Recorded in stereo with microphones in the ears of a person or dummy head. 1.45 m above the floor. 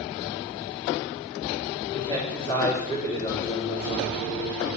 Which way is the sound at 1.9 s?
20° left (ahead or behind).